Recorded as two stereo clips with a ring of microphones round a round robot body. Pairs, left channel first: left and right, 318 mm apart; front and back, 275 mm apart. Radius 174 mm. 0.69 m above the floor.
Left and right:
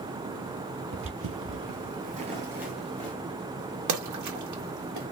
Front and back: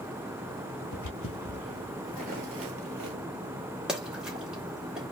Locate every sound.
0.9 s footsteps: 40° right, 1.2 m; by 3.2 s 175° left, 1.1 m
3.9 s a splash: 95° right, 1.2 m